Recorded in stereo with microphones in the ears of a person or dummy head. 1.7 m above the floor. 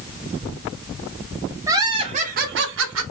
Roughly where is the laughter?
Centre.